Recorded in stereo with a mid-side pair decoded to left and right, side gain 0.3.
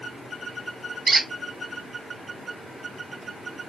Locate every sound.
1.1 s a squeak: 50° right, 0.8 m